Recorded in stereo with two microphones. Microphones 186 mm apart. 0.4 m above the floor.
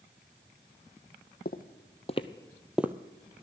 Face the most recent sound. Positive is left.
turn(degrees=-15)  # may be behind; listen again after turning